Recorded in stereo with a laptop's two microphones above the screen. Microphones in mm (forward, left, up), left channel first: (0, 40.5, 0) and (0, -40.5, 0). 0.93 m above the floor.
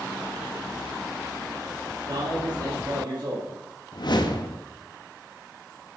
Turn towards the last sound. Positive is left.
turn(degrees=60)  # may be behind; listen again after turning